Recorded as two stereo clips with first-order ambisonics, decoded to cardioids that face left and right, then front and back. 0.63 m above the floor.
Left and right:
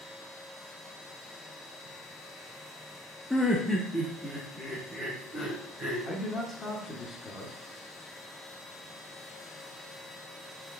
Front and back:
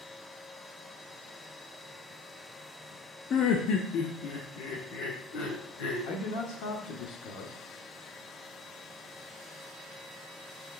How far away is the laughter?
About 0.6 m.